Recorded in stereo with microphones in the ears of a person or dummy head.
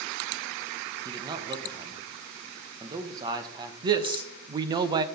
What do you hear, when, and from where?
1.1 s a man speaking: 20° right (ahead or behind), 1.4 m
3.8 s a man speaking: 30° right (ahead or behind), 0.7 m